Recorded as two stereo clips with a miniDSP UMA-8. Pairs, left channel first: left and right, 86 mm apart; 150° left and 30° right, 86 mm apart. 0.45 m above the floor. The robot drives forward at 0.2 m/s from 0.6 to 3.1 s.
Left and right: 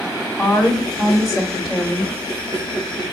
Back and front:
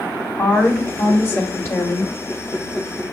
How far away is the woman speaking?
About 1.5 m.